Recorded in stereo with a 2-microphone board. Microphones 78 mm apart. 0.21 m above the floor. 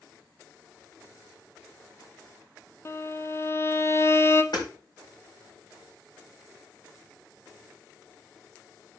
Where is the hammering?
70° left (ahead or behind), 6.5 m.